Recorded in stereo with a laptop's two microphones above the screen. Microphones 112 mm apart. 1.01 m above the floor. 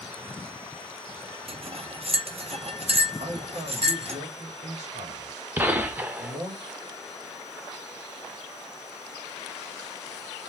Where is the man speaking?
70° right (ahead or behind), 1.4 m.